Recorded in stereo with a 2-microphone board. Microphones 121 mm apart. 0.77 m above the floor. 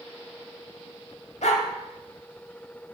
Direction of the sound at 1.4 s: 75° left (ahead or behind).